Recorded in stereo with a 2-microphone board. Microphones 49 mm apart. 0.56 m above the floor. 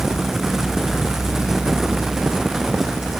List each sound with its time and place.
Only background noise.